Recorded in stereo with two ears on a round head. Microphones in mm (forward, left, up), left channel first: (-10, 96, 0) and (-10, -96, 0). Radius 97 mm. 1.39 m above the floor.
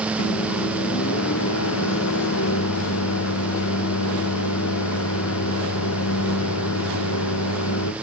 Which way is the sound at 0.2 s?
65° left (ahead or behind).